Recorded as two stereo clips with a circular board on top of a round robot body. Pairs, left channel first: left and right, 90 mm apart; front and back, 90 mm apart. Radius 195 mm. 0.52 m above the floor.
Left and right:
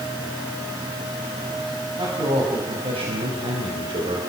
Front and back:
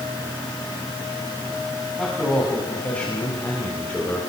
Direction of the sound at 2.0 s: 80° right.